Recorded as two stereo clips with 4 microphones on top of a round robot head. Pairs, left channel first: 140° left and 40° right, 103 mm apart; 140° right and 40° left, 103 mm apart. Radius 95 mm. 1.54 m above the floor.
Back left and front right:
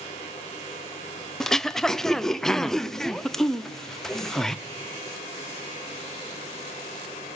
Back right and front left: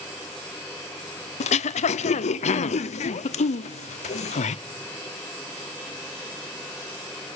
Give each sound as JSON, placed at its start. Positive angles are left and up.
{"t": 1.4, "sound": "throat clearing", "azimuth_deg": -135, "distance_m": 0.6}